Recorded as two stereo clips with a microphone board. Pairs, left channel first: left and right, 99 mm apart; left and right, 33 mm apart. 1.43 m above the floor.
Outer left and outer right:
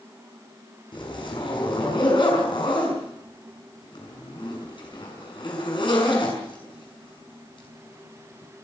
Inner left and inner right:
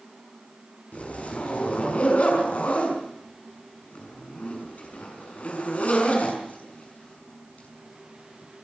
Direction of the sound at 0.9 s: 55° left (ahead or behind).